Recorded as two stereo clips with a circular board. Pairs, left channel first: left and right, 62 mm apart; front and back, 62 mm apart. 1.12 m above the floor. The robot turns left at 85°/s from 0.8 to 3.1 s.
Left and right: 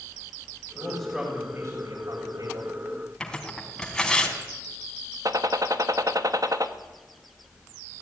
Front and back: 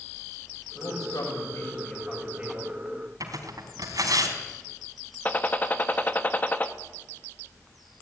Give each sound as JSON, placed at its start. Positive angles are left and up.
{"t": 0.8, "sound": "a man speaking", "azimuth_deg": 35, "distance_m": 7.0}
{"t": 3.2, "sound": "tearing paper", "azimuth_deg": 170, "distance_m": 3.5}
{"t": 5.2, "sound": "a gunshot", "azimuth_deg": -65, "distance_m": 1.5}